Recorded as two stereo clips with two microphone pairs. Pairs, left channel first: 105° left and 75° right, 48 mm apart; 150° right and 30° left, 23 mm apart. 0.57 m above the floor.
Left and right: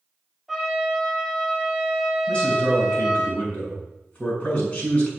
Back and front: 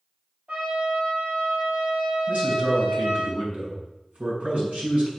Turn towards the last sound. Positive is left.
turn(degrees=35)